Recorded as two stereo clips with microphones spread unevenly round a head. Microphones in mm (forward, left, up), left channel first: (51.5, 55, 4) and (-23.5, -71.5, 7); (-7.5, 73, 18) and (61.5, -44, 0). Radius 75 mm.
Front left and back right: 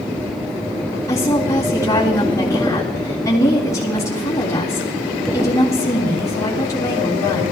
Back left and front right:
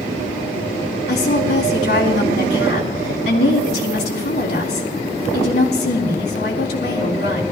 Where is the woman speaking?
130° left, 3.5 m.